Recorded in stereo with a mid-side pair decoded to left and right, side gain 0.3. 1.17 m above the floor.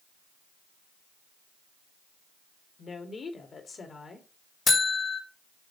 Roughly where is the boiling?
I don't hear boiling.